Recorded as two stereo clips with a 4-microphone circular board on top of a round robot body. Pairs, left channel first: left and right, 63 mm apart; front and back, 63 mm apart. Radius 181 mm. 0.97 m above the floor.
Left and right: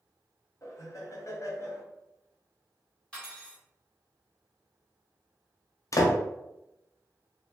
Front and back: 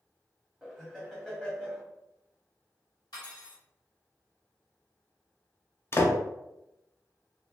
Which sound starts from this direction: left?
Laughter, at 0.6 s.